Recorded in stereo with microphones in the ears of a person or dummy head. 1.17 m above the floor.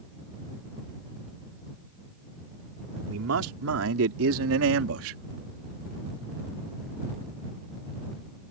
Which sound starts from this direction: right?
A man speaking, at 3.1 s.